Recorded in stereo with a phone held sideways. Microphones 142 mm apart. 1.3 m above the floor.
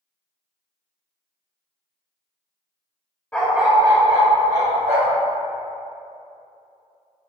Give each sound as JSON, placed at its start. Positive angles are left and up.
{"t": 3.3, "sound": "a dog barking", "side_deg": 10, "distance_m": 0.9}